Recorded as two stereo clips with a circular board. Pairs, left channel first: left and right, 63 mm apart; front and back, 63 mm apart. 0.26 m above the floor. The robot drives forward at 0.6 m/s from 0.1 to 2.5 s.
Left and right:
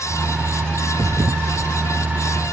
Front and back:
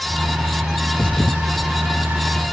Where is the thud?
60° right.